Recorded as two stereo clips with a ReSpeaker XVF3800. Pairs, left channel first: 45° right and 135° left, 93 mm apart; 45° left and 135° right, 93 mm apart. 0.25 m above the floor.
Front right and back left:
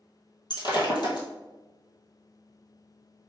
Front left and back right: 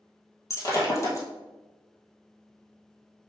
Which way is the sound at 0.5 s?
10° right.